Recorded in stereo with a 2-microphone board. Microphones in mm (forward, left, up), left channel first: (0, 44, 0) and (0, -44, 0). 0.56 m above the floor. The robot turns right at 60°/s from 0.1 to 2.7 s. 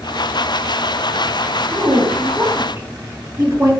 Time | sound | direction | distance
1.7 | a woman speaking | 60° right (ahead or behind) | 1.8 m